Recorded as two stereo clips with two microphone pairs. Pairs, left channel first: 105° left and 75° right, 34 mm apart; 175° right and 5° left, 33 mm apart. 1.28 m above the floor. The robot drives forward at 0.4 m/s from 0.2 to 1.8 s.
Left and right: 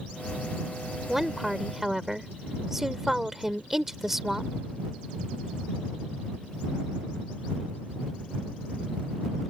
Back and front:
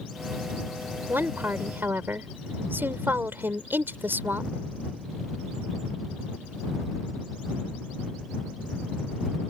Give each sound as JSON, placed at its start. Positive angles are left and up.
{"t": 1.1, "sound": "a woman speaking", "azimuth_deg": 5}